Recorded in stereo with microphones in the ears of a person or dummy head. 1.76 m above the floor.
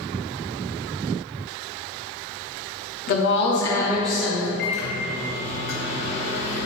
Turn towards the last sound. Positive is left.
turn(degrees=40)  # may be behind; listen again after turning